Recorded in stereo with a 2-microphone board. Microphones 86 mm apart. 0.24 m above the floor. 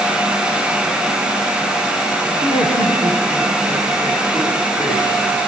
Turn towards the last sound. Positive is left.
turn(degrees=55)  # may be behind; listen again after turning